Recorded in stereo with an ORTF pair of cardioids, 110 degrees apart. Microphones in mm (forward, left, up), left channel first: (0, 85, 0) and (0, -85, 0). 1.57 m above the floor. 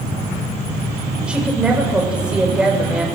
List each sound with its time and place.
1.3 s a woman speaking: 5° right, 7.5 m